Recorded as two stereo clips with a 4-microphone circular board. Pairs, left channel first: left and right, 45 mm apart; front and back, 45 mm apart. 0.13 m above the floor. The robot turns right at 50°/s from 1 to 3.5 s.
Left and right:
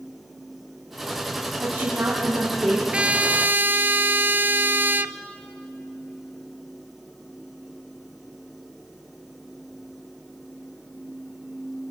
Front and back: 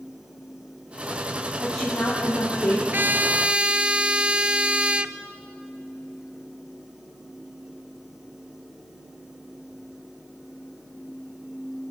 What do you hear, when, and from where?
1.6 s a woman speaking: 90° right, 4.5 m; by 2.8 s 30° right, 4.5 m
2.9 s a trumpet: 150° right, 0.5 m; by 5.2 s 120° right, 0.5 m